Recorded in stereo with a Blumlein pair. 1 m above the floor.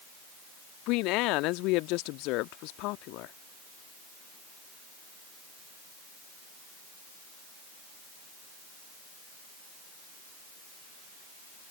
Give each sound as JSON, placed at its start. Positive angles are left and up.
{"t": 0.9, "sound": "a woman speaking", "azimuth_deg": 40}